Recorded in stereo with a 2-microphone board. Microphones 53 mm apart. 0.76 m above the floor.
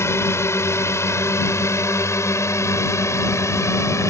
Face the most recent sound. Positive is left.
turn(degrees=70)  # may be behind; listen again after turning